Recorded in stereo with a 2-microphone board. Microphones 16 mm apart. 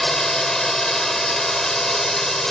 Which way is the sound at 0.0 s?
25° left (ahead or behind).